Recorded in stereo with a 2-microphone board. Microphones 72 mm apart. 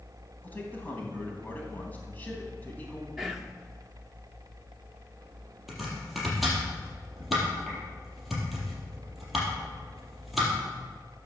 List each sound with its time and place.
0.4 s a man speaking: 20° left (ahead or behind), 3.5 m
3.2 s whispering: 5° right (ahead or behind), 0.7 m
5.7 s chopping: 5° right (ahead or behind), 4.5 m